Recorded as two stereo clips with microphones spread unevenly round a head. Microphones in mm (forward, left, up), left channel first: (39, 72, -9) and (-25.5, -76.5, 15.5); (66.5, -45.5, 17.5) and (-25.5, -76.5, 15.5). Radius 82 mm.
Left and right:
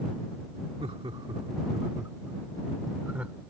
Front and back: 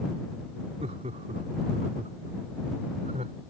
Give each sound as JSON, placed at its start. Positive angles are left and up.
{"t": 0.8, "sound": "laughter", "azimuth_deg": -170}